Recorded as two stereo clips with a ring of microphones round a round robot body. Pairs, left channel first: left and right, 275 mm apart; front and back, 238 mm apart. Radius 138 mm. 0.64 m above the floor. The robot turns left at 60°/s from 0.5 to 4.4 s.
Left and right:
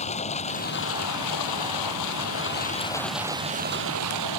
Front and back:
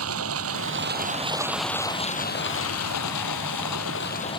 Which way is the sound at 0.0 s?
155° left.